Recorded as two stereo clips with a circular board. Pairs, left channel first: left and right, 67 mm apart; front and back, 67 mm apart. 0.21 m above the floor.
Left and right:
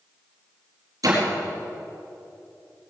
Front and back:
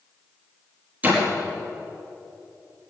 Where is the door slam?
115° right, 4.5 m.